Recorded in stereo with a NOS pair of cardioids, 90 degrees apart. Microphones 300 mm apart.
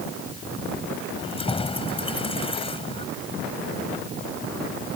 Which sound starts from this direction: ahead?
Keys jangling, at 1.2 s.